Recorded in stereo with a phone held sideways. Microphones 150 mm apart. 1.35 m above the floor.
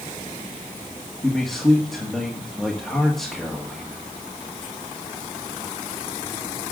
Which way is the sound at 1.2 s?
Centre (ahead or behind).